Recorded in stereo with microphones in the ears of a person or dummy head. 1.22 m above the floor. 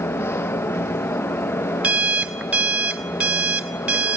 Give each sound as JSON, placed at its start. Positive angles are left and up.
{"t": 0.0, "sound": "a fan", "side_deg": 10, "distance_m": 1.0}
{"t": 1.8, "sound": "an alarm clock", "side_deg": -10, "distance_m": 0.7}